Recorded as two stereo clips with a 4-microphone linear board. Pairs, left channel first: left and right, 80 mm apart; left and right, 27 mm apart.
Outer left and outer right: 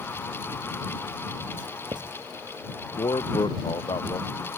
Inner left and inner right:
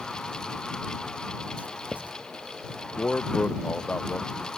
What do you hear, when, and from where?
1.6 s writing: 80° right
3.0 s a man speaking: 85° left